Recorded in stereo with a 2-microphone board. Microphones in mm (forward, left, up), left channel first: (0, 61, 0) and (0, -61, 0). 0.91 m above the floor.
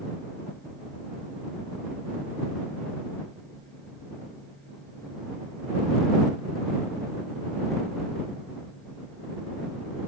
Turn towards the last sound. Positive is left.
No sound to turn to.